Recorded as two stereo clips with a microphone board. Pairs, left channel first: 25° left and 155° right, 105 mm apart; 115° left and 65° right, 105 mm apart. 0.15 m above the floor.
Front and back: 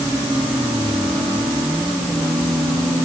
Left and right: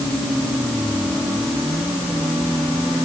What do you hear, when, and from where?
Only background noise.